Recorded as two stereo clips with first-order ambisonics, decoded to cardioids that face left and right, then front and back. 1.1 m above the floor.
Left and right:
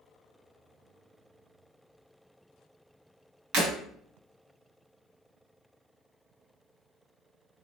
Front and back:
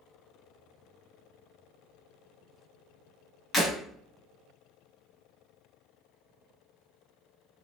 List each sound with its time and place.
3.5 s breaking glass: 75° right, 1.8 m